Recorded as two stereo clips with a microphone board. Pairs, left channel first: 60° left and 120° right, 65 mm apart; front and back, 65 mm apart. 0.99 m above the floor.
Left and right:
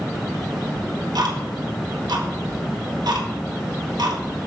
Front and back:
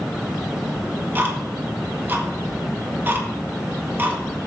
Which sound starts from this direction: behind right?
Ticking, at 0.8 s.